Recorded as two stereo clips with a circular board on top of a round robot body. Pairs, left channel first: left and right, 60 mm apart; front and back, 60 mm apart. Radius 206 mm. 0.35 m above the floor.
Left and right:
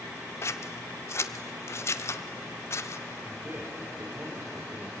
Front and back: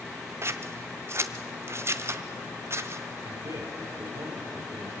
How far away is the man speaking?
About 6.5 m.